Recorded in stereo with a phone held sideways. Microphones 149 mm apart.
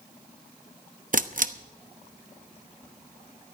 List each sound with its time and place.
1.1 s a camera shutter: 60° right (ahead or behind), 0.7 m